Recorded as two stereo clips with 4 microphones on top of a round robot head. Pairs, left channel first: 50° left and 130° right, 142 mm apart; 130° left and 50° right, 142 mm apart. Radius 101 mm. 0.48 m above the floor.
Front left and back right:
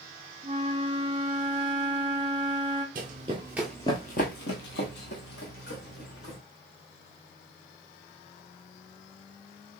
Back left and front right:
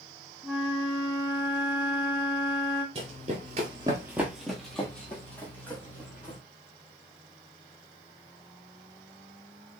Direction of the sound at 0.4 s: 130° right.